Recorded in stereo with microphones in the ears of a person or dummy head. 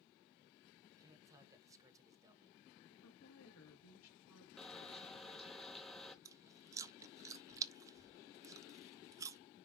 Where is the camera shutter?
5° left (ahead or behind), 0.9 m.